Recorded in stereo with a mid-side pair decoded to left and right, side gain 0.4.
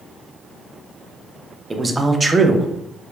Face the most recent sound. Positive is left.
turn(degrees=-25)